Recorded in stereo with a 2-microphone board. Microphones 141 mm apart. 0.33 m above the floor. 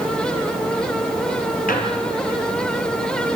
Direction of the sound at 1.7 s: 75° left (ahead or behind).